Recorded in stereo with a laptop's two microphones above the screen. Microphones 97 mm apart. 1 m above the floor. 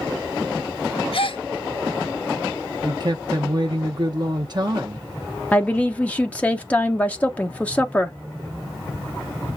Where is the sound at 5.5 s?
15° left (ahead or behind), 0.7 m.